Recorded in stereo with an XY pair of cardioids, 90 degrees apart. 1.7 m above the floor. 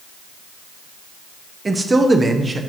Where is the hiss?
I don't hear a hiss.